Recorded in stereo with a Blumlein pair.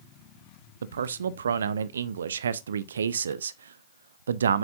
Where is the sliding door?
No sliding door in this recording.